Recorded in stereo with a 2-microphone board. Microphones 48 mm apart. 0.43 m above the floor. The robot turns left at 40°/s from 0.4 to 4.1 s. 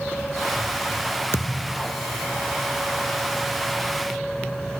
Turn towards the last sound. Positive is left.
turn(degrees=-15)